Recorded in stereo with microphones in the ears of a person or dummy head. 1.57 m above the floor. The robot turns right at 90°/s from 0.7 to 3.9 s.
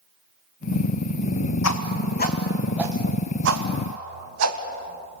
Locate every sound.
1.6 s a whoosh: 80° left, 1.5 m; by 5.2 s 75° right (ahead or behind), 1.5 m